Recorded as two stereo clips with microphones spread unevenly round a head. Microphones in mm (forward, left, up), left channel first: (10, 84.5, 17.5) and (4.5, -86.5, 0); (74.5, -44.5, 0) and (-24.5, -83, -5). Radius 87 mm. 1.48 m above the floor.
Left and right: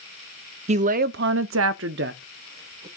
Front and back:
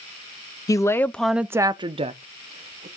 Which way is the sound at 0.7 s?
40° right.